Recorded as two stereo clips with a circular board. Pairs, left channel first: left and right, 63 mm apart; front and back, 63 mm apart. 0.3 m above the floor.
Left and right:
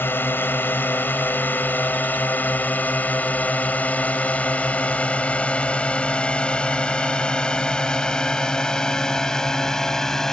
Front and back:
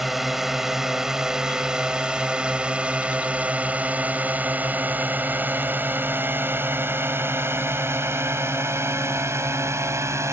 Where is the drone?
95° left; by 10.3 s 170° left.